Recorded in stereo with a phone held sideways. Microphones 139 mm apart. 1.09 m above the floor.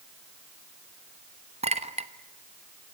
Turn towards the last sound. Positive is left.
turn(degrees=-50)  # may be behind; listen again after turning